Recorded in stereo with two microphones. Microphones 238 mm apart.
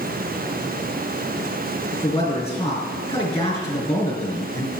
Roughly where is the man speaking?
Left.